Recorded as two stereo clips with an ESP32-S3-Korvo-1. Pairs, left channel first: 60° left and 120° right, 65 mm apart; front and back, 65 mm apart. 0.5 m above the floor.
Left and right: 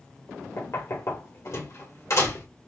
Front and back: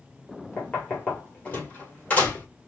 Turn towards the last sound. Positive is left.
turn(degrees=60)